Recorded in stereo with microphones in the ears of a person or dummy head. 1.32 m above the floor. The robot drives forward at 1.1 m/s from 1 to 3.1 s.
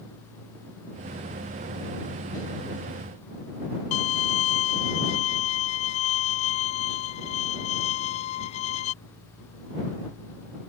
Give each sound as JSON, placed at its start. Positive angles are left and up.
{"t": 3.9, "sound": "a violin", "side_deg": 40}